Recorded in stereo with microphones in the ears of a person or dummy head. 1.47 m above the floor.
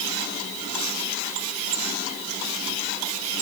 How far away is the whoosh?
No whoosh in this recording.